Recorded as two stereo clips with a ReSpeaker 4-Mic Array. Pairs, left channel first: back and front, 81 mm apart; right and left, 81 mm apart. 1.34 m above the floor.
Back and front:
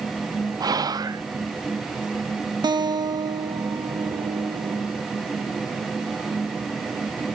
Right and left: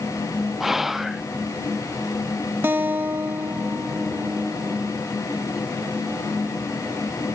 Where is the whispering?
5° left, 0.5 m.